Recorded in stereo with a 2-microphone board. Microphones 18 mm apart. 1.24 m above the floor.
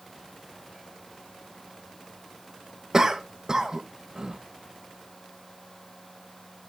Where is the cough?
30° right (ahead or behind), 1.4 m.